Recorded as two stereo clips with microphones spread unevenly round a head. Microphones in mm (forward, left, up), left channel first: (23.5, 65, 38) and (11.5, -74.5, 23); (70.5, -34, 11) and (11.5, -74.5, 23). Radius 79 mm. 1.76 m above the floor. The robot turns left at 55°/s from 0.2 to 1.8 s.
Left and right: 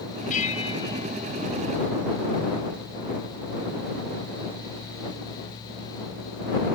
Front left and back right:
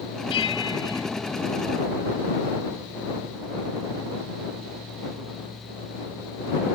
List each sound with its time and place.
0.3 s a bell: 55° left; by 1.1 s 10° left